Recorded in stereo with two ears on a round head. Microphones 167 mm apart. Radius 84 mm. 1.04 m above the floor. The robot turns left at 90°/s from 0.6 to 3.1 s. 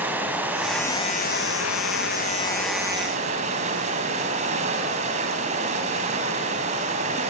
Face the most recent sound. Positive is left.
turn(degrees=-35)